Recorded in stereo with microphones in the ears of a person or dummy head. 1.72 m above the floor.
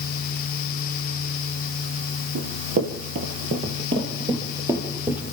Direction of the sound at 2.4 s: 45° right (ahead or behind).